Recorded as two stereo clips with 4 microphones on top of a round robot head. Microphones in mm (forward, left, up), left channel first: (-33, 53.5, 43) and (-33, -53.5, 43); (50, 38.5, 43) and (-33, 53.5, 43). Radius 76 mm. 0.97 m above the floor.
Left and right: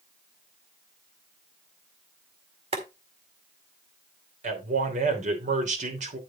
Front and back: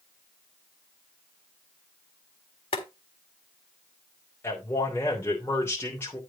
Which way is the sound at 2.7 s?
45° right.